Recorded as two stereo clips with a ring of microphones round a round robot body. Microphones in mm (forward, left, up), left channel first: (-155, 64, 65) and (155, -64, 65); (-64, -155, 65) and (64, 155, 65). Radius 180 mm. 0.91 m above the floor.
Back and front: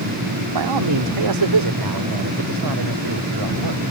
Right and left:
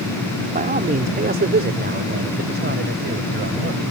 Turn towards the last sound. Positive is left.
turn(degrees=5)